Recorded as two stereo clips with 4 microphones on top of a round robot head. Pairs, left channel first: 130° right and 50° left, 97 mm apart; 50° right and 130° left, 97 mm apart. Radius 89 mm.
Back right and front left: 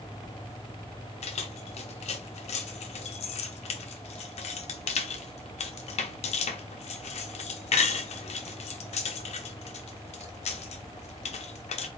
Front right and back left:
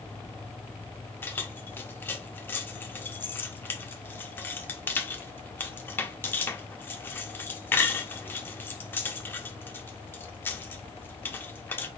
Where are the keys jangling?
120° right, 0.7 m.